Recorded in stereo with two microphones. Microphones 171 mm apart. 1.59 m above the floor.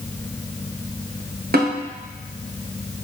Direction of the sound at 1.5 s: 65° right (ahead or behind).